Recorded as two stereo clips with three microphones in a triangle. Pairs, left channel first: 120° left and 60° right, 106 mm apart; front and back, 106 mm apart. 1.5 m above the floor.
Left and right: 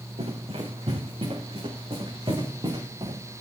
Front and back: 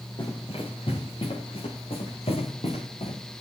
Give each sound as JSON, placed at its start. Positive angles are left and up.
{"t": 0.2, "sound": "running footsteps", "azimuth_deg": -40, "distance_m": 7.5}